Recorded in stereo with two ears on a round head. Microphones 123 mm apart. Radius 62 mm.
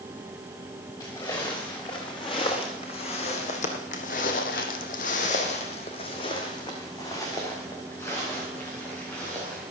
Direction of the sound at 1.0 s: 30° left (ahead or behind).